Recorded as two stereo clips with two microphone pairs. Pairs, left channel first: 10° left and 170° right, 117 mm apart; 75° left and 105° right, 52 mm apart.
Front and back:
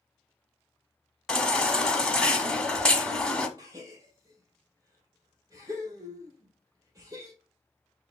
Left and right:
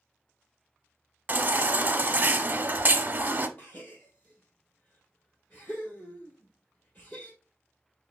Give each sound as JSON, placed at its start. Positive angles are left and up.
{"t": 1.3, "sound": "a baby crying", "azimuth_deg": -70, "distance_m": 0.8}
{"t": 3.6, "sound": "a gasp", "azimuth_deg": 130, "distance_m": 2.0}